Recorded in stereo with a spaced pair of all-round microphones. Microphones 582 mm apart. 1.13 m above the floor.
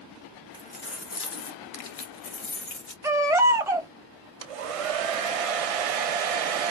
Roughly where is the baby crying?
Centre.